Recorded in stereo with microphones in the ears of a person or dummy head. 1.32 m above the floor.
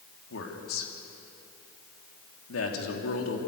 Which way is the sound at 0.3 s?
85° left.